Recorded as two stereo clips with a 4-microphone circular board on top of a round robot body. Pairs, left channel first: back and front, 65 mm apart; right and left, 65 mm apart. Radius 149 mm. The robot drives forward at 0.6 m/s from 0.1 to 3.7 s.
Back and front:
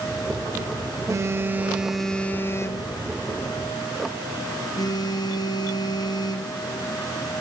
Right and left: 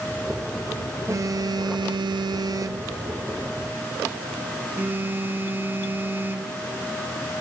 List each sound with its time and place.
1.1 s a phone buzzing: 45° left, 0.8 m; by 6.5 s 155° left, 1.2 m